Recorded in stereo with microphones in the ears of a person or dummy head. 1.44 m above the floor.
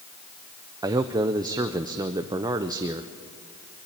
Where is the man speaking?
15° right (ahead or behind), 0.6 m.